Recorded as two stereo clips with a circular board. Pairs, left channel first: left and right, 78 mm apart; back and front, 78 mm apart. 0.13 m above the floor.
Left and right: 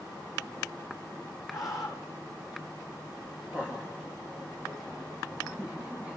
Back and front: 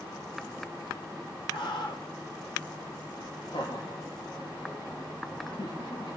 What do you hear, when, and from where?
1.5 s a scream: 175° right, 5.5 m
3.5 s laughter: 160° right, 9 m